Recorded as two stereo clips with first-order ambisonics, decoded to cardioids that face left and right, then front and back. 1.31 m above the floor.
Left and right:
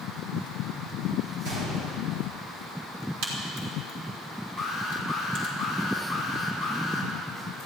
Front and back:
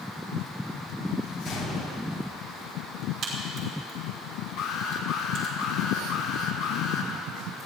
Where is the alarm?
10° right, 2.5 m.